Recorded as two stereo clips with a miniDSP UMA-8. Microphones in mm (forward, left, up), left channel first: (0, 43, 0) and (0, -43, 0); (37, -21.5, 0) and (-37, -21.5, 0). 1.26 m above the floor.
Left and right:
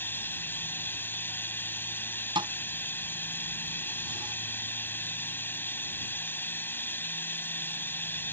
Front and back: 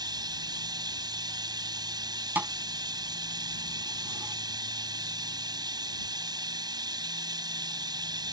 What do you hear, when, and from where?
0.0 s running water: 155° left
2.4 s a thud: 110° right